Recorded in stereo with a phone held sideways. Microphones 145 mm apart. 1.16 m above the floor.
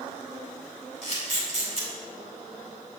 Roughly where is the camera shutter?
Right.